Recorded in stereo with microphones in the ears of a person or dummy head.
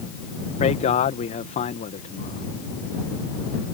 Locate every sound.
0.6 s a man speaking: 40° left (ahead or behind)